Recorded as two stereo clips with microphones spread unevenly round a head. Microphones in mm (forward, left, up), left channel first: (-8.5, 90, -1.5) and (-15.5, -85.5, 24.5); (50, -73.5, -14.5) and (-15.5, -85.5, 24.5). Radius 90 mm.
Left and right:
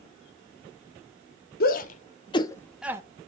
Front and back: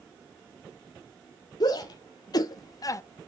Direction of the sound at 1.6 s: 50° left.